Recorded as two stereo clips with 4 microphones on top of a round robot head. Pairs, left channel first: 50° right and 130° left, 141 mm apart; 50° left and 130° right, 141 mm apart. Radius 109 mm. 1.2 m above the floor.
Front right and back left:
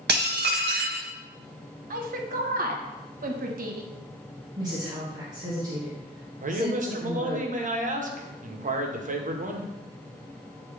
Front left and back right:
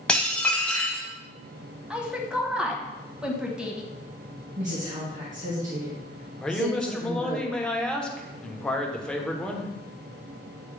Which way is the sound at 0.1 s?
130° left.